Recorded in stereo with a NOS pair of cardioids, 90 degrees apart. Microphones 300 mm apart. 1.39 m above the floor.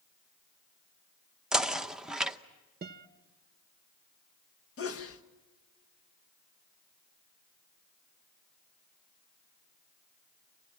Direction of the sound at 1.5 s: Straight ahead.